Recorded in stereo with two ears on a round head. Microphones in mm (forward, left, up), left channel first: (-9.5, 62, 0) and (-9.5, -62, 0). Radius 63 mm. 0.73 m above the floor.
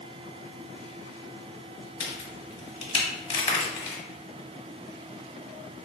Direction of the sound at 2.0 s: 45° left (ahead or behind).